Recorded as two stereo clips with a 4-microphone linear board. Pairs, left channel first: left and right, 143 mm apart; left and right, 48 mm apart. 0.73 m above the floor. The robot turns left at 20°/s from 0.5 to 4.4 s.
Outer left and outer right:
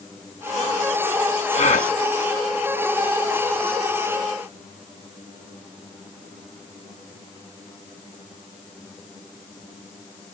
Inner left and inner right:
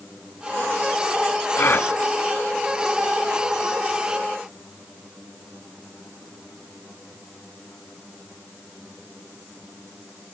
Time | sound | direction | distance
1.6 | a gasp | 50° left (ahead or behind) | 1.4 m